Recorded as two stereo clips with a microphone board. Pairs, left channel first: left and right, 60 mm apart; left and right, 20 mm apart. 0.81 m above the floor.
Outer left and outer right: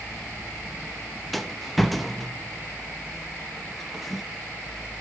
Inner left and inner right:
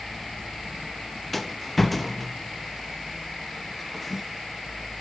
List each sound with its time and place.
1.3 s a rattle: centre (ahead or behind), 0.7 m